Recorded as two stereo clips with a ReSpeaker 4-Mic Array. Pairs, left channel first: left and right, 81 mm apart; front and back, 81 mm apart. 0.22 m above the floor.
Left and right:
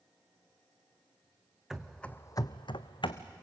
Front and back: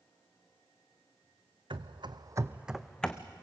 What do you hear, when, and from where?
1.7 s running footsteps: 175° right, 1.1 m; by 3.2 s 75° left, 1.3 m